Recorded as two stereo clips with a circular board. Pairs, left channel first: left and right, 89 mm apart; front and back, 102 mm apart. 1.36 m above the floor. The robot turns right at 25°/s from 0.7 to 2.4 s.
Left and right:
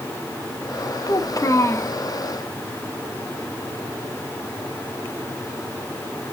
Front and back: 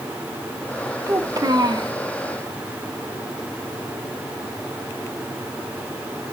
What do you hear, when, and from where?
1.1 s a child speaking: 125° left, 1.3 m; by 1.9 s 150° left, 1.3 m